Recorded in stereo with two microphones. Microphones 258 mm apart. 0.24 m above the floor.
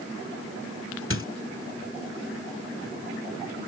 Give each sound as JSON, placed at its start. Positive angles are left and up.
{"t": 1.1, "sound": "a squeak", "side_deg": 50}